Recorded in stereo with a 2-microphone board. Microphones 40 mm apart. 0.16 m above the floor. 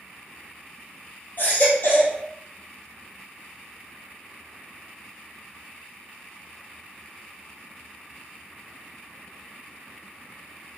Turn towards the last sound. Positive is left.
turn(degrees=50)  # may be behind; listen again after turning